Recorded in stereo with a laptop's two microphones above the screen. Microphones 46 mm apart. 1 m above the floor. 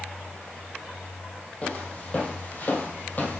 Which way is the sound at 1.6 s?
25° left (ahead or behind).